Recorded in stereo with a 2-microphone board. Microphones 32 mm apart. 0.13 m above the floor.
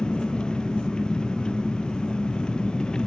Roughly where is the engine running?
Left.